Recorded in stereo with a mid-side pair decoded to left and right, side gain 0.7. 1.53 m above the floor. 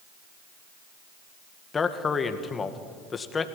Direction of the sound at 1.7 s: 25° left.